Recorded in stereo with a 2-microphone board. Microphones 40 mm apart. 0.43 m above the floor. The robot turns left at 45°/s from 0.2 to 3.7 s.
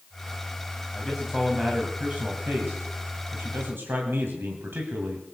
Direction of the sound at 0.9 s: 10° left.